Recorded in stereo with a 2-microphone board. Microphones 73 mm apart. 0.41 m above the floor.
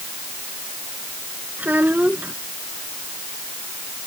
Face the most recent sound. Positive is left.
turn(degrees=-25)  # may be behind; listen again after turning